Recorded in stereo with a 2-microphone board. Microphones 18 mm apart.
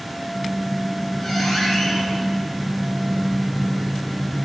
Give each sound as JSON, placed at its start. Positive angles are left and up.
{"t": 0.2, "sound": "a squeak", "side_deg": 15, "distance_m": 1.9}